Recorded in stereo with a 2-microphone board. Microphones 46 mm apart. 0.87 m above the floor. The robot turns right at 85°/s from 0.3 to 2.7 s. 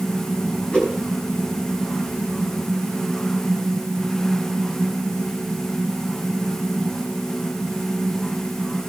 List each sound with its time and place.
0.7 s a whoosh: 25° left (ahead or behind), 4.5 m; by 1.0 s 5° left (ahead or behind), 4.5 m